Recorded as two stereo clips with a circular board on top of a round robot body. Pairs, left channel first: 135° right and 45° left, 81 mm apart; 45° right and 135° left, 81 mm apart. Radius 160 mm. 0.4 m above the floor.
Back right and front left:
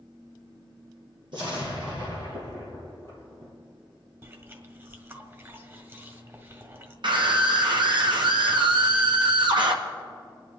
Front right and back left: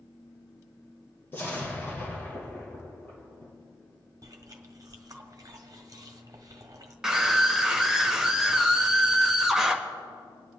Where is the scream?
50° left, 1.9 m.